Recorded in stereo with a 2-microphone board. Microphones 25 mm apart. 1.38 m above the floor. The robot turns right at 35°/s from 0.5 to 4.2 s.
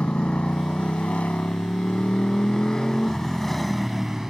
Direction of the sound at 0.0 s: 60° left.